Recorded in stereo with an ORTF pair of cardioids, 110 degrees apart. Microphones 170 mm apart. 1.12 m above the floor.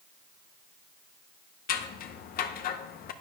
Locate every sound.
1.7 s scissors: 60° left, 0.7 m